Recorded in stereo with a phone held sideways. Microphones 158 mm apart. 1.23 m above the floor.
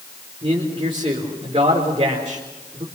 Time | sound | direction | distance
0.4 | a man speaking | 35° right (ahead or behind) | 4 m